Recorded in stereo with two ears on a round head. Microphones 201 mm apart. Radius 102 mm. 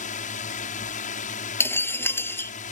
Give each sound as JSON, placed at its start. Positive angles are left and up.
{"t": 0.0, "sound": "a drone", "side_deg": 35}
{"t": 1.6, "sound": "breaking glass", "side_deg": 10}